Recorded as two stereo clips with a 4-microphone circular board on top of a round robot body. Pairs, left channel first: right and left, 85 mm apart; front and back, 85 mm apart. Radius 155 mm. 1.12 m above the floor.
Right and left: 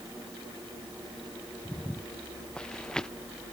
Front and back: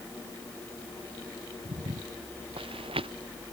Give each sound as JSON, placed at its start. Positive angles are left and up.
{"t": 1.6, "sound": "footsteps", "azimuth_deg": -165}